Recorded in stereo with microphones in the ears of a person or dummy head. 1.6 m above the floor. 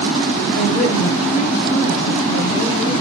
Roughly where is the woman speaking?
Left.